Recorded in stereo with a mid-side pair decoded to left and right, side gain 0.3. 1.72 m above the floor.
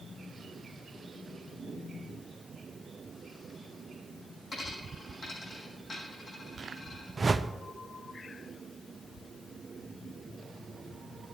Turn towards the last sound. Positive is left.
turn(degrees=-40)